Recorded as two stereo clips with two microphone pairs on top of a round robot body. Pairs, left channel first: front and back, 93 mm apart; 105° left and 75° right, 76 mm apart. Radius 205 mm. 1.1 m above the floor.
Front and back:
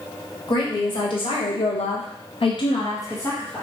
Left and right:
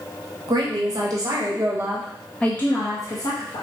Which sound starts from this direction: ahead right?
A woman speaking, at 0.5 s.